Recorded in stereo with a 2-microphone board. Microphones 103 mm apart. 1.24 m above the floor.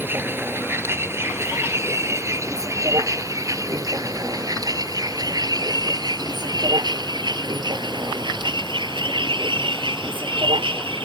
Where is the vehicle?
20° right (ahead or behind); by 11.1 s 55° right (ahead or behind).